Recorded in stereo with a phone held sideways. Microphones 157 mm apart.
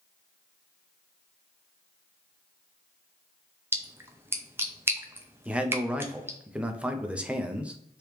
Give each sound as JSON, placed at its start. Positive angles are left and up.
{"t": 3.7, "sound": "a splash", "side_deg": -15, "distance_m": 0.5}
{"t": 5.5, "sound": "a man speaking", "side_deg": -5, "distance_m": 0.5}